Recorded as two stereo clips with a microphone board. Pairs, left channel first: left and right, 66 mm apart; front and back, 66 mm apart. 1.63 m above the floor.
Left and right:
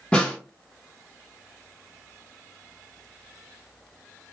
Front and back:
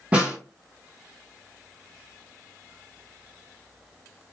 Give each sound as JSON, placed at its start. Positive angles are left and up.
{"t": 0.1, "sound": "a snare drum", "azimuth_deg": 140, "distance_m": 1.0}